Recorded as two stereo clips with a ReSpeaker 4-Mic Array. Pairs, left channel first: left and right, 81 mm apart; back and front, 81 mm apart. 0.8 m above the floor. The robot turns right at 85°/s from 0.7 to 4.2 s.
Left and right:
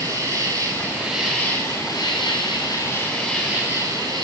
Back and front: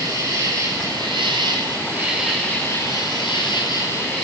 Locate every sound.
0.0 s an insect: 35° right, 5.5 m; by 4.2 s 100° right, 5.5 m